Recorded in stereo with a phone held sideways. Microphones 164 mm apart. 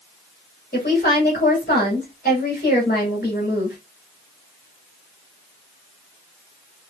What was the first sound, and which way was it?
A woman speaking, 55° left (ahead or behind).